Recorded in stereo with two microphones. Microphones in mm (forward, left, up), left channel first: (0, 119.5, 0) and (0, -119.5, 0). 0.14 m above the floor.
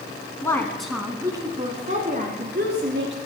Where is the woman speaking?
15° left (ahead or behind), 1.2 m; by 3.2 s 50° right (ahead or behind), 1.9 m.